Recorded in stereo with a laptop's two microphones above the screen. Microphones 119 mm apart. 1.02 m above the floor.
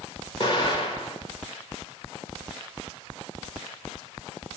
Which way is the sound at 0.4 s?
45° left (ahead or behind).